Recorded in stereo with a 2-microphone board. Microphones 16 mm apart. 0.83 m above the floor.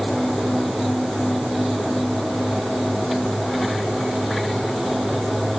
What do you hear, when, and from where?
Only background noise.